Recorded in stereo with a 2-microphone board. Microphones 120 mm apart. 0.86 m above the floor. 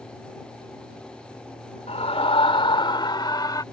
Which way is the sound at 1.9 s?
60° left (ahead or behind).